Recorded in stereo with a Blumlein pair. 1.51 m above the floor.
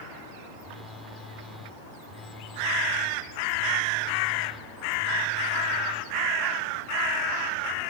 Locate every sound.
0.6 s a phone buzzing: 10° left